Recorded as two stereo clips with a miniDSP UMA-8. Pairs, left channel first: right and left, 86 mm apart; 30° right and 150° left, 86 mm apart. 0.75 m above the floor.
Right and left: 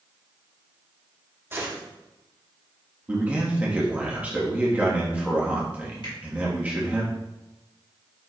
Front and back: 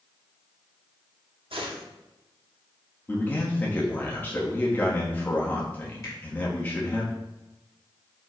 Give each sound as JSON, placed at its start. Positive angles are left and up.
{"t": 1.5, "sound": "a gunshot", "azimuth_deg": 155, "distance_m": 0.9}
{"t": 3.1, "sound": "a man speaking", "azimuth_deg": 25, "distance_m": 1.0}
{"t": 6.0, "sound": "a finger snap", "azimuth_deg": -80, "distance_m": 1.8}